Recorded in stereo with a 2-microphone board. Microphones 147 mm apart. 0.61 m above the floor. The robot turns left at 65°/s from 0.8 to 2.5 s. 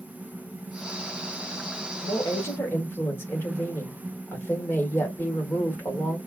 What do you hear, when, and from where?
2.0 s a woman speaking: 50° left, 2.5 m; by 6.2 s 20° left, 2.5 m